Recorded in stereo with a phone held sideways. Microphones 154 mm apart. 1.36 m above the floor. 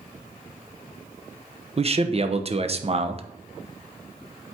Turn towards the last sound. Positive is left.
turn(degrees=-40)  # may be behind; listen again after turning